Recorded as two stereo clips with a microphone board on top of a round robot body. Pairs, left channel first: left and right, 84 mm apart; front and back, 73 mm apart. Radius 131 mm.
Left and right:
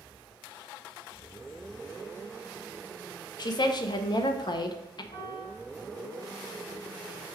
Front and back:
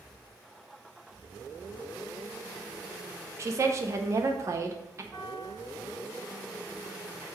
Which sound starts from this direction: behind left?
A woman speaking, at 3.4 s.